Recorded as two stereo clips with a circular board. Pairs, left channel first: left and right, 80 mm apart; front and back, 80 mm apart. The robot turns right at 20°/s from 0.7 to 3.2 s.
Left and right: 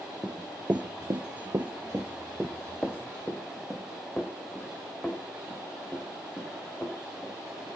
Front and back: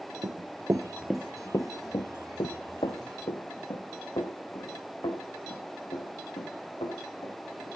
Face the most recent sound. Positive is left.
turn(degrees=20)